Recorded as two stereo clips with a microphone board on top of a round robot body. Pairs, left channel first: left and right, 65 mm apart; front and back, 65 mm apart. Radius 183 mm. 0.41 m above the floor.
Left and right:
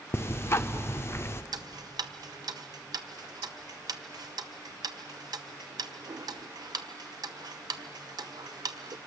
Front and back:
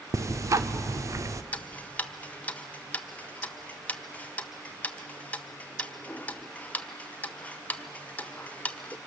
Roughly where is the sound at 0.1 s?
Behind left.